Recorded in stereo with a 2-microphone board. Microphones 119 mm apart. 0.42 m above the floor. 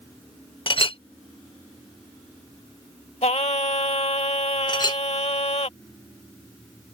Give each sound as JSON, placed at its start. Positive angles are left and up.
{"t": 0.7, "sound": "a clink", "side_deg": 50}
{"t": 3.2, "sound": "singing", "side_deg": 65}
{"t": 4.7, "sound": "a clink", "side_deg": 40}